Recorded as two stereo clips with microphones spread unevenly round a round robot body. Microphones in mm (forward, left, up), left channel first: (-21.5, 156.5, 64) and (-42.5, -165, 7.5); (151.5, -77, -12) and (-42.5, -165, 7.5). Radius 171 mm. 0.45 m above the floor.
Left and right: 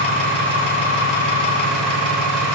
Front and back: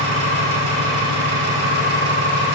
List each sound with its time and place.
0.0 s an engine running: 175° left, 2.5 m